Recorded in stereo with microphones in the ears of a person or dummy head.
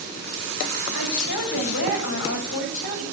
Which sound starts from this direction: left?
A woman speaking, at 0.9 s.